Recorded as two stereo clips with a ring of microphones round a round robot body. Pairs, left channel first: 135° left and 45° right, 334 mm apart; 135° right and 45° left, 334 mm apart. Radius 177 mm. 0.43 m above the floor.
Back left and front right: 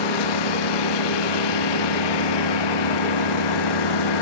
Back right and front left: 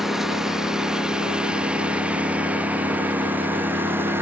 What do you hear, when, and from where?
0.0 s a lawn mower: 135° left; by 4.2 s 130° left